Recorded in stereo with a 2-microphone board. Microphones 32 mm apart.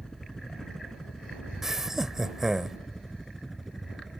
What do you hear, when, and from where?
0.0 s a helicopter: 20° left (ahead or behind); by 4.2 s centre (ahead or behind)
1.6 s laughter: 10° right (ahead or behind)